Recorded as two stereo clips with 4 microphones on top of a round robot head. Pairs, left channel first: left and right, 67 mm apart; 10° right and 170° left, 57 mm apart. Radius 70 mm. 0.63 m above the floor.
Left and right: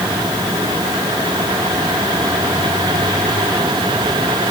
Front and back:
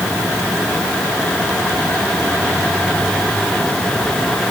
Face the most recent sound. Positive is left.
No sound to turn to.